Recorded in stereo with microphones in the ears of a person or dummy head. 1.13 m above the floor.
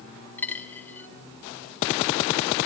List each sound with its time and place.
0.4 s a dropped coin: 10° left (ahead or behind), 1.6 m